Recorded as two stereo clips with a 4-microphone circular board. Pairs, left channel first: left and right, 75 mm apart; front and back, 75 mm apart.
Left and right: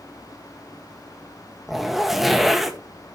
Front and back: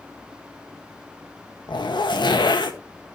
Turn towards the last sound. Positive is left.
turn(degrees=0)